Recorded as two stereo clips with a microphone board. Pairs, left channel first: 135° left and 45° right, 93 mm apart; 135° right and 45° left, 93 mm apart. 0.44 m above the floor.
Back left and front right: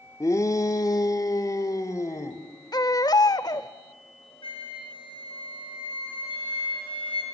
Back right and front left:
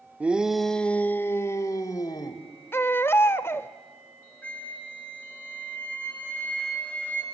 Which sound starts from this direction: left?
A shout, at 0.2 s.